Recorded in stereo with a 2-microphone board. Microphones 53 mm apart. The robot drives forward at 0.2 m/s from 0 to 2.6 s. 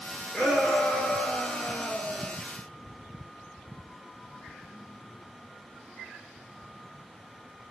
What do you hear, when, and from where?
0.3 s a shout: 5° left (ahead or behind), 1.9 m; by 2.4 s 10° left (ahead or behind), 1.7 m